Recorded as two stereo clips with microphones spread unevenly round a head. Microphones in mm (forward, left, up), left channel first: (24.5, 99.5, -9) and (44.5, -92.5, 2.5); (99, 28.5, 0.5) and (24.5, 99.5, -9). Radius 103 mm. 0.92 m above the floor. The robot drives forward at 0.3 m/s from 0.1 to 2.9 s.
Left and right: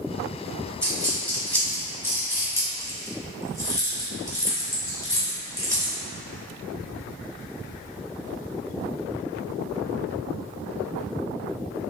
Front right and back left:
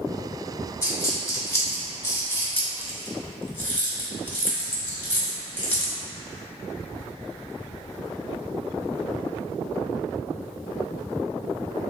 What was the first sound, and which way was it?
A dropped coin, 10° left.